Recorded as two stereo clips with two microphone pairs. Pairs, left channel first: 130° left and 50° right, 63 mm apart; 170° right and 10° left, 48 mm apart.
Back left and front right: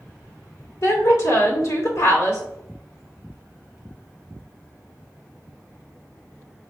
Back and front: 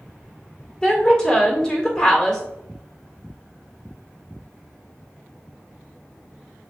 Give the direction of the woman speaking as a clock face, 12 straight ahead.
8 o'clock.